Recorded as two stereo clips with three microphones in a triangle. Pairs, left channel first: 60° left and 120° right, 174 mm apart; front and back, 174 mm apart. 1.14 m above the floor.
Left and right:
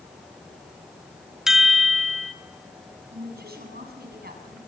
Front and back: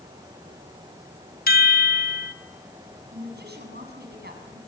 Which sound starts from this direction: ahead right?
A chime, at 1.5 s.